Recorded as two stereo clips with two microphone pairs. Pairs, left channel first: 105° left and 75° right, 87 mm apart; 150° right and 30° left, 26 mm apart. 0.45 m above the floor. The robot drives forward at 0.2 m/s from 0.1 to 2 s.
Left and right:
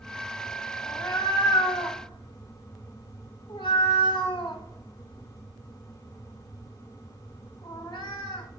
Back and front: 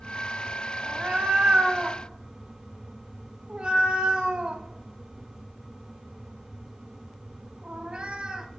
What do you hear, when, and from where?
0.8 s a cat meowing: 70° left, 0.9 m; by 8.5 s 85° left, 0.9 m